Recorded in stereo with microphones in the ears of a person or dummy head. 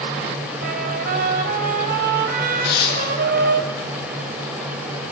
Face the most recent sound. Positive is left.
turn(degrees=70)  # may be behind; listen again after turning